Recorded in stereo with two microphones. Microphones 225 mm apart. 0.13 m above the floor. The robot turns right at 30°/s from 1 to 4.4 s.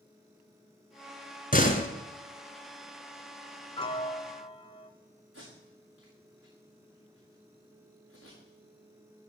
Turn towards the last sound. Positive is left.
turn(degrees=-75)  # may be behind; listen again after turning